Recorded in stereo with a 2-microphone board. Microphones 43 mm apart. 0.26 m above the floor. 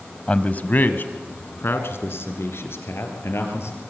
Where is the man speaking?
25° left (ahead or behind), 1.1 m; by 3.8 s 80° left, 4.5 m.